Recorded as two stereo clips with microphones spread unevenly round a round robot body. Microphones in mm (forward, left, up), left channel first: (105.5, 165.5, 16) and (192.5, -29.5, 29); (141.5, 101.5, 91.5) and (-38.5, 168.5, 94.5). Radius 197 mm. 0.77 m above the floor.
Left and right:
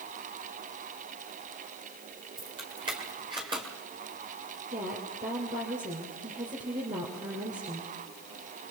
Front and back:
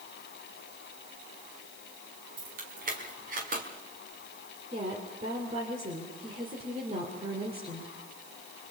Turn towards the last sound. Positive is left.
turn(degrees=-135)